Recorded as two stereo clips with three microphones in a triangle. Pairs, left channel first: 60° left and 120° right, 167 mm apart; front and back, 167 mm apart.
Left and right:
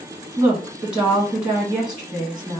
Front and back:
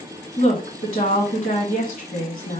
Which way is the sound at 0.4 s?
35° right.